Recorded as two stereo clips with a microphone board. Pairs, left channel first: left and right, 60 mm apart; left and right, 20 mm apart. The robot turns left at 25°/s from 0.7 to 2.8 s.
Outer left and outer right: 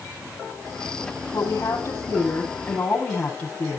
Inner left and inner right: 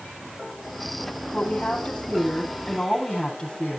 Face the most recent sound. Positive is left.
turn(degrees=25)